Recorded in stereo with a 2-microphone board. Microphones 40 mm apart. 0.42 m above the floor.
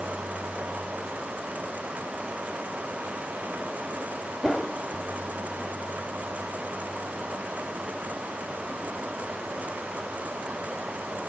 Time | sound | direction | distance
4.4 | a whoosh | 10° left (ahead or behind) | 1.0 m